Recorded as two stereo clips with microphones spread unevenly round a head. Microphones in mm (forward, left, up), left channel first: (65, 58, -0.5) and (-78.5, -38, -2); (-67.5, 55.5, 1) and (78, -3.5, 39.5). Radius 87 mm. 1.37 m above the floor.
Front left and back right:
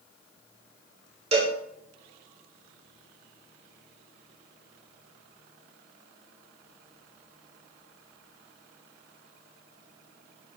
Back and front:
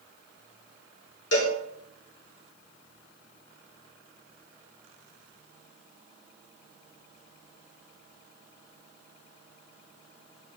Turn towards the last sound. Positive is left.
turn(degrees=160)